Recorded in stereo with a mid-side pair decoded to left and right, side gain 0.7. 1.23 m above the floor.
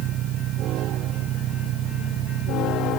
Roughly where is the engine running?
Ahead right.